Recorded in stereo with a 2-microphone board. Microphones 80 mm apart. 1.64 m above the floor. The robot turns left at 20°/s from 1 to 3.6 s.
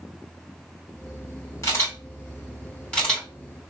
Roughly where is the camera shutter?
Left.